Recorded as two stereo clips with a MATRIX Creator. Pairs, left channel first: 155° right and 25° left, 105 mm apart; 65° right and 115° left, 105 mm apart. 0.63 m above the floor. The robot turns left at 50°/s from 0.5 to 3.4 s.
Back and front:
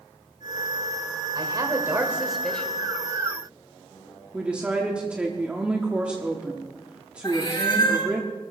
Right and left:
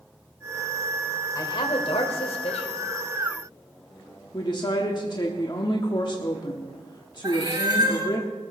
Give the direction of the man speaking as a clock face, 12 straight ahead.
1 o'clock.